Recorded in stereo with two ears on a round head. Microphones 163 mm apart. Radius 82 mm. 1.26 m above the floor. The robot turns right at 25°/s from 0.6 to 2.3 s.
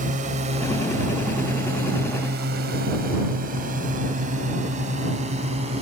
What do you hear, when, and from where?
0.0 s a drone: 45° right (ahead or behind); by 5.8 s 35° right (ahead or behind)